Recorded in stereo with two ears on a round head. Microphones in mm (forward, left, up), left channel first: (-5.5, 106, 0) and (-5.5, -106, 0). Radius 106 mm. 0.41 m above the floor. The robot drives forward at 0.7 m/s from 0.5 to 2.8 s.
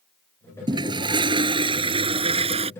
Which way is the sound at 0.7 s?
20° right (ahead or behind).